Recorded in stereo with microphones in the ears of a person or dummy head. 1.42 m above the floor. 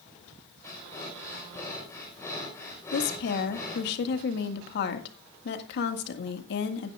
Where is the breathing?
10° left (ahead or behind), 4.5 m.